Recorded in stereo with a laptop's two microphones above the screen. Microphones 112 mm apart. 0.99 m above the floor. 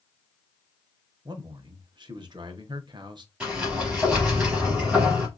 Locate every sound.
1.2 s a man speaking: 40° right (ahead or behind), 0.6 m
3.4 s a sliding door: 10° right (ahead or behind), 3 m